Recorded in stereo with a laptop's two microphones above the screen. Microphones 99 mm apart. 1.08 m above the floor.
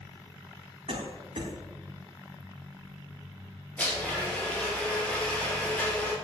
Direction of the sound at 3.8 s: 15° left (ahead or behind).